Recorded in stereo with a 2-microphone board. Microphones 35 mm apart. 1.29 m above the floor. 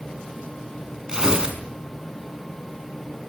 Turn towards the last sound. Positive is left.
turn(degrees=-20)  # may be behind; listen again after turning